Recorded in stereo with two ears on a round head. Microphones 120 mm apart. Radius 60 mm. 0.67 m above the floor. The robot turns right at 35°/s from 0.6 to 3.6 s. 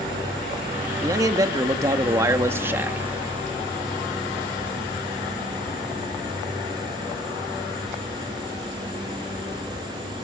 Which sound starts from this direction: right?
A man speaking, at 1.0 s.